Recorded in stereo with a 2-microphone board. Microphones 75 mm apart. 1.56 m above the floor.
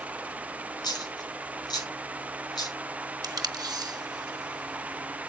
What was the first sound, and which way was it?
A dropped coin, 70° left (ahead or behind).